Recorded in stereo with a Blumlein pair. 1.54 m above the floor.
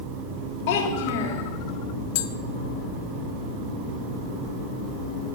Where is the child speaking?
45° left, 3 m.